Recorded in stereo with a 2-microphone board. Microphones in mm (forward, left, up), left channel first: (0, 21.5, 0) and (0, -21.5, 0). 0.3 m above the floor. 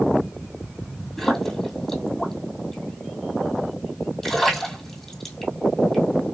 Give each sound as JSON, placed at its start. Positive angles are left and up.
{"t": 1.2, "sound": "a splash", "side_deg": 5, "distance_m": 1.6}